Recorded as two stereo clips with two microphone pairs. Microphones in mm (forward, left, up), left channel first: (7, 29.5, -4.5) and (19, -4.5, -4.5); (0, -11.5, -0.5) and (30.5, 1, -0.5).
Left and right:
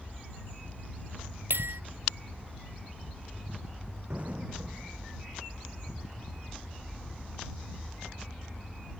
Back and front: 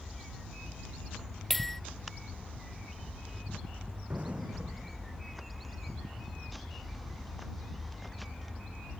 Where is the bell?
75° right.